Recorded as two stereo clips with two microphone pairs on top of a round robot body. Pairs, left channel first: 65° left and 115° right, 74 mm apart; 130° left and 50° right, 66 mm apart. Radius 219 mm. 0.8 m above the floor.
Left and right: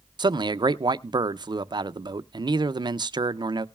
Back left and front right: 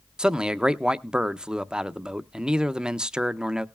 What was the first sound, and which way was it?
A man speaking, 130° right.